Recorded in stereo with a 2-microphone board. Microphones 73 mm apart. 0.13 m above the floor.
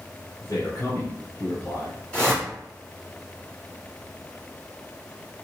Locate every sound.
0.4 s a man speaking: 40° left (ahead or behind), 1.9 m
2.1 s a whoosh: 15° left (ahead or behind), 1.7 m